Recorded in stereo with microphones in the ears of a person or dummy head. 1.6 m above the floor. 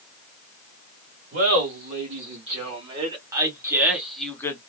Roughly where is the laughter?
Right.